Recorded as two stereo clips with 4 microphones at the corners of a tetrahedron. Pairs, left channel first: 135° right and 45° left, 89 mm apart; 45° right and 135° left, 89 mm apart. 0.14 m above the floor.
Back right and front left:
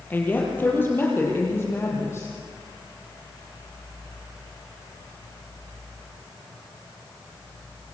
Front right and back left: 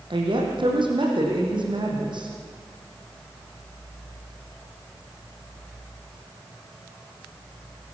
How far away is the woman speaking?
About 5 m.